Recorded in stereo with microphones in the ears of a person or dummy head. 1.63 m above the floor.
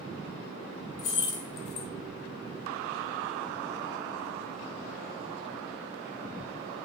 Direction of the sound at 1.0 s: 30° left (ahead or behind).